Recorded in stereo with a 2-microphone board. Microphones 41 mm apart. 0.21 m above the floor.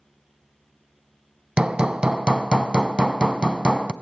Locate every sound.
1.6 s hammering: 20° right (ahead or behind), 0.6 m